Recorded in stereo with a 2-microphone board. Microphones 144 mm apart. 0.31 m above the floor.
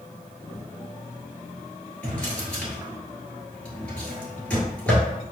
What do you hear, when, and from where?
2.0 s a drawer: 10° left (ahead or behind), 1.7 m